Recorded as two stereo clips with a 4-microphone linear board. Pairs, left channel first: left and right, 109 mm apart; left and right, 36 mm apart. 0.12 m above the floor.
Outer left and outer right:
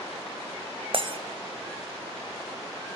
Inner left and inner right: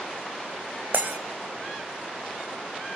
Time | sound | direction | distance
0.9 | breaking glass | 55° right (ahead or behind) | 1.1 m